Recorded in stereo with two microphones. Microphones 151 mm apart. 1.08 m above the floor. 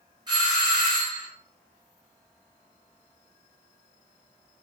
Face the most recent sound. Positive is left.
turn(degrees=-30)  # may be behind; listen again after turning